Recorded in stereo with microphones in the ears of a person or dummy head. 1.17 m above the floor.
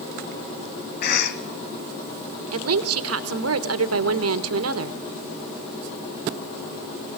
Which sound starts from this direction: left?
A cough, at 1.0 s.